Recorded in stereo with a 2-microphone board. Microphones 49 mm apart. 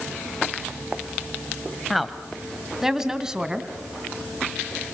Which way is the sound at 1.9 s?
Centre (ahead or behind).